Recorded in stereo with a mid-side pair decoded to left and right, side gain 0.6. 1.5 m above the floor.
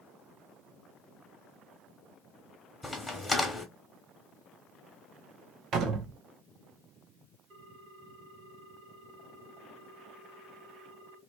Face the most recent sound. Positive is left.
turn(degrees=-60)